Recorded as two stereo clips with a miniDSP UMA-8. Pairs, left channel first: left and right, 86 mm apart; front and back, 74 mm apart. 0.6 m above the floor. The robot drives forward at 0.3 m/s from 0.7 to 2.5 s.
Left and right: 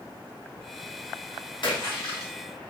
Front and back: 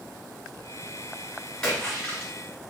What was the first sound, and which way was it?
A splash, 80° left.